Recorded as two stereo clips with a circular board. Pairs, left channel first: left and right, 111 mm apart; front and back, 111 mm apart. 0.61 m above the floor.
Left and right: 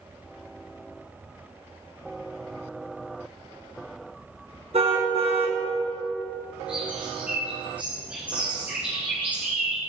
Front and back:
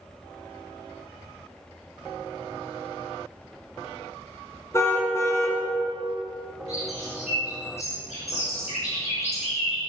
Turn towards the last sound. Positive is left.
turn(degrees=-10)